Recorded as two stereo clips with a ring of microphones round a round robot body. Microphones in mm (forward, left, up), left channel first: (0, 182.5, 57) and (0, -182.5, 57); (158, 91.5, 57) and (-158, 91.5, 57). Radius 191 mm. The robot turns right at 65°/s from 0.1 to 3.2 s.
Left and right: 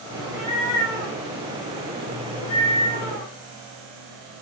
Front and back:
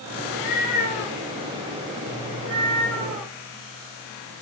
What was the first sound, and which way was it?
A cat meowing, 15° right.